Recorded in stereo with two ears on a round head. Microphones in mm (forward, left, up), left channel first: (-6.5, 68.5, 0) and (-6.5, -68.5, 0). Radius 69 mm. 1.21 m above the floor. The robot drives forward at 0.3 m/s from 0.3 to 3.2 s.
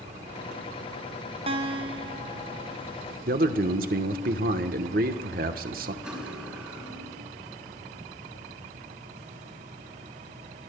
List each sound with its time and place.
1.5 s a guitar: 40° right (ahead or behind), 0.9 m; by 2.8 s 25° right (ahead or behind), 1.2 m
3.3 s a man speaking: 60° right (ahead or behind), 1.1 m
6.0 s cutlery clinking: 5° right (ahead or behind), 4.5 m